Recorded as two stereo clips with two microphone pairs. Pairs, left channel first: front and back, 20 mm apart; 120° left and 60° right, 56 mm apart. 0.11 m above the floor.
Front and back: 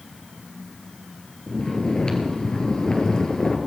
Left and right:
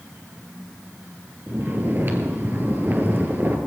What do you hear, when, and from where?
1.5 s snoring: 25° right, 2 m